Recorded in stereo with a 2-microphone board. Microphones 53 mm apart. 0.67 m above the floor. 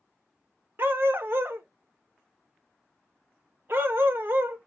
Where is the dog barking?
45° right (ahead or behind), 0.7 m.